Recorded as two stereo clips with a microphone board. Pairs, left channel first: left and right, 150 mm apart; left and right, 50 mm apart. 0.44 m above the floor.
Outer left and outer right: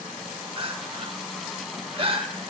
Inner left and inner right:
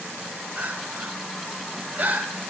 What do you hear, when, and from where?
0.6 s crying: 35° right (ahead or behind), 0.7 m